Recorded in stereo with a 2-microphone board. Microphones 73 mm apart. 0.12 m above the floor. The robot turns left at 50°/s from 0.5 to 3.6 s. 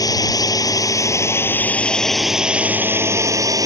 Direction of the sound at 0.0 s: 85° left.